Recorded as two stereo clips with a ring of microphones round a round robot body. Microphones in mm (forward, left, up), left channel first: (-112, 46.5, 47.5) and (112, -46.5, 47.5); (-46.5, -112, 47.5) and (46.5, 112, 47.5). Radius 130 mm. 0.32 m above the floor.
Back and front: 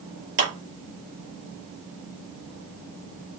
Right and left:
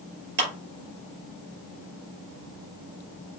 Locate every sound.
0.4 s a clap: 20° left, 5 m